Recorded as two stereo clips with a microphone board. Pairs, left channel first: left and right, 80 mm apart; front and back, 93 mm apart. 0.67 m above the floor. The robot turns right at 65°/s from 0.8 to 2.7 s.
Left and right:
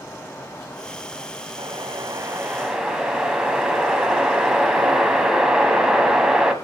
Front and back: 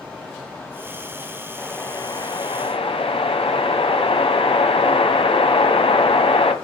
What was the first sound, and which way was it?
A whoosh, 80° right.